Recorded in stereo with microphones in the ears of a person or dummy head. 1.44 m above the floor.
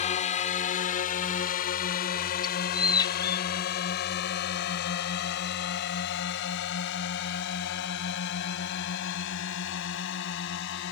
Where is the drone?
35° left (ahead or behind); by 10.9 s 65° left (ahead or behind).